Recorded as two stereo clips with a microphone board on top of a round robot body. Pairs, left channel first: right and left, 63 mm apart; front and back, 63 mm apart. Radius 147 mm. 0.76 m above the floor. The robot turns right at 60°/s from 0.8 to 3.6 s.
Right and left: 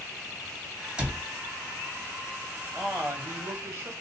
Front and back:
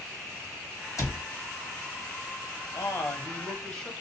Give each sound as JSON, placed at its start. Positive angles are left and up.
{"t": 1.0, "sound": "a cupboard door", "azimuth_deg": 15, "distance_m": 1.5}
{"t": 2.7, "sound": "a man speaking", "azimuth_deg": 25, "distance_m": 1.4}